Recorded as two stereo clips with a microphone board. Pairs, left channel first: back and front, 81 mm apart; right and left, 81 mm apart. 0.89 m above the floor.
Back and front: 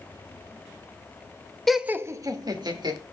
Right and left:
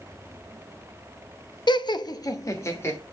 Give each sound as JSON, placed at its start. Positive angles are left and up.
{"t": 1.7, "sound": "laughter", "azimuth_deg": -95, "distance_m": 0.7}